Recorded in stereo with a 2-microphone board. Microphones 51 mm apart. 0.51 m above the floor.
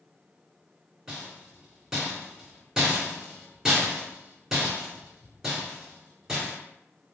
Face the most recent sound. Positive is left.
turn(degrees=-15)  # may be behind; listen again after turning